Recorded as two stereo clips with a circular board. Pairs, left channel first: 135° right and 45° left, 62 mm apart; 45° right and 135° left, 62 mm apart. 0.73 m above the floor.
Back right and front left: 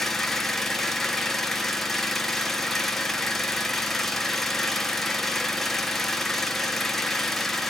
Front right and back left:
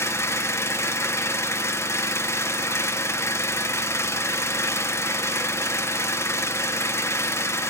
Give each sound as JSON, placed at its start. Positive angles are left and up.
{"t": 0.0, "sound": "an engine running", "azimuth_deg": -50, "distance_m": 1.0}